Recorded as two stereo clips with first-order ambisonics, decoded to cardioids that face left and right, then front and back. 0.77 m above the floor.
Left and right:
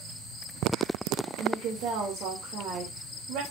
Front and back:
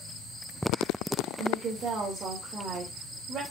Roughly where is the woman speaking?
Behind right.